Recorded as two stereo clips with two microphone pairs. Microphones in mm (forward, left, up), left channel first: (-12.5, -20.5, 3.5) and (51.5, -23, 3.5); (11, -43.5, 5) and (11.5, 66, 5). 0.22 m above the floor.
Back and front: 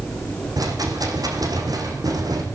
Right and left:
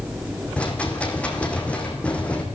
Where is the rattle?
10° right, 5 m.